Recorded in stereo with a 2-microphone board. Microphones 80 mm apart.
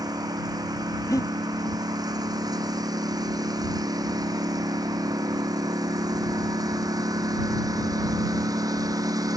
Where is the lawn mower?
55° right (ahead or behind); by 9.4 s 50° right (ahead or behind).